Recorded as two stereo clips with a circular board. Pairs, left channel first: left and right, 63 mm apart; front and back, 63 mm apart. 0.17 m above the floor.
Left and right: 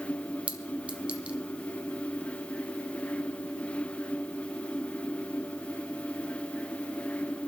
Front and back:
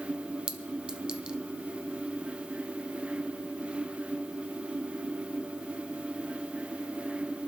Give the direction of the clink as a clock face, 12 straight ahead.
4 o'clock.